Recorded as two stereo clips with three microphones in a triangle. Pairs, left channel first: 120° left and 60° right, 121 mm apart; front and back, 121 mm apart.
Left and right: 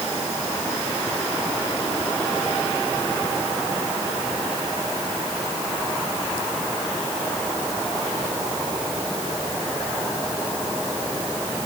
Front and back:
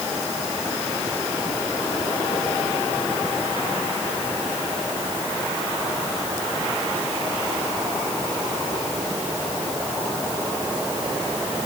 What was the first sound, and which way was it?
Only background noise.